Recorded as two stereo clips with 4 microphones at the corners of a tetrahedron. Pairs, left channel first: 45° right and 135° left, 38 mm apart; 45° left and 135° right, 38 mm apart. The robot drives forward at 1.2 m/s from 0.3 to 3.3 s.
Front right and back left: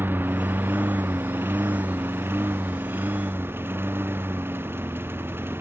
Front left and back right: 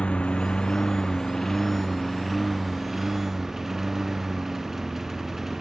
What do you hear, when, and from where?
0.0 s a lawn mower: 110° left; by 5.6 s 145° left